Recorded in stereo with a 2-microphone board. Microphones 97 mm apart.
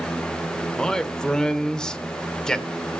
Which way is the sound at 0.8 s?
10° left (ahead or behind).